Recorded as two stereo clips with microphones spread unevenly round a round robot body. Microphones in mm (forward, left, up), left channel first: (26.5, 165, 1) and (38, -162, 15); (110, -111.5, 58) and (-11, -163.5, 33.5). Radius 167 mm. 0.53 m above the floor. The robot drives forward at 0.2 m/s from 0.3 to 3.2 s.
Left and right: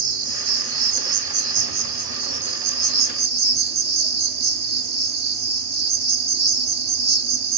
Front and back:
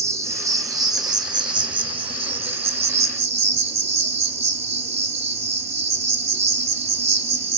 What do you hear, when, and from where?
0.0 s an insect: 85° right, 1.0 m; by 7.6 s 115° right, 1.1 m